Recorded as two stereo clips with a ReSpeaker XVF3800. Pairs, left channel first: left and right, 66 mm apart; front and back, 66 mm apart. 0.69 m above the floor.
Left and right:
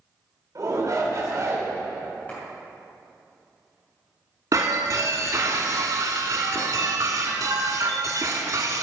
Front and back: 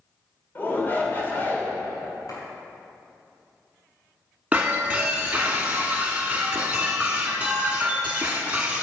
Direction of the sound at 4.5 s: 110° right.